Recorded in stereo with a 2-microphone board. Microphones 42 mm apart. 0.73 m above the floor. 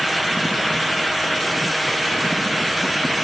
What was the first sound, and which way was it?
Only background noise.